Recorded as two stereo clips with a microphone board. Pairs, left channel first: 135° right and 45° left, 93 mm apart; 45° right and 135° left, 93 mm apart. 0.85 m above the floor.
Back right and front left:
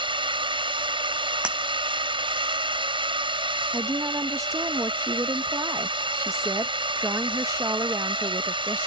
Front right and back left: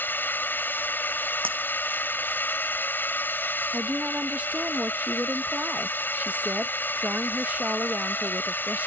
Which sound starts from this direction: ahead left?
A drone, at 0.0 s.